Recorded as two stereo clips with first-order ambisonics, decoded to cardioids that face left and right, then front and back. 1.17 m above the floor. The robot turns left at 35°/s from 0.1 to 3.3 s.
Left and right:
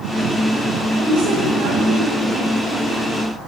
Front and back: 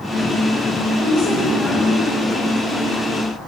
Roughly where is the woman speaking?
Ahead right.